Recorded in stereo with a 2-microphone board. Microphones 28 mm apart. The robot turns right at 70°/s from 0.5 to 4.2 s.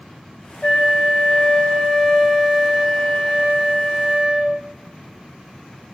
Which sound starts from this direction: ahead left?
A flute, at 0.6 s.